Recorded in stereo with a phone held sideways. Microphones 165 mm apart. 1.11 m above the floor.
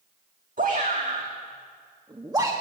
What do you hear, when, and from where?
0.6 s a shout: 55° right (ahead or behind), 1.7 m; by 2.5 s 20° right (ahead or behind), 1.3 m